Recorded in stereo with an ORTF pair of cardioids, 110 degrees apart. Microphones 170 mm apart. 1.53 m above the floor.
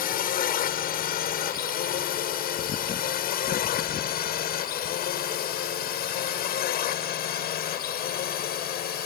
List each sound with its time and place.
0.0 s a drone: 65° left; by 9.1 s 70° left